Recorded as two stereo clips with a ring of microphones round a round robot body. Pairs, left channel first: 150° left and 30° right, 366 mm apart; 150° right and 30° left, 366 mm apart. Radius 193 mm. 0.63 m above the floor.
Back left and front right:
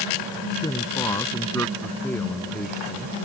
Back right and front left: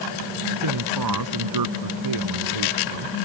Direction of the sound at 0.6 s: 70° left.